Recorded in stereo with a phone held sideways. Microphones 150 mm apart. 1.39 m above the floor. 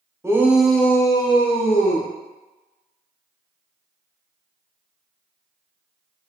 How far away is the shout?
About 0.9 m.